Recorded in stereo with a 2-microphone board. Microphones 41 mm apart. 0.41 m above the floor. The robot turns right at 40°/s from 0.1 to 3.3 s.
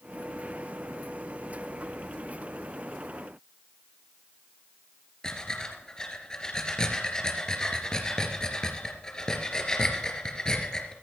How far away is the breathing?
About 2.5 m.